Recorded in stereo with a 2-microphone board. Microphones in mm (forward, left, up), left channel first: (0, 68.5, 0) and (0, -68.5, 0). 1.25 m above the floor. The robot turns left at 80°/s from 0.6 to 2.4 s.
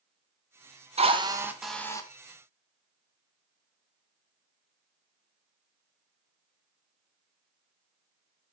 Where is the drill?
125° right, 0.9 m; by 2.1 s 150° left, 0.9 m.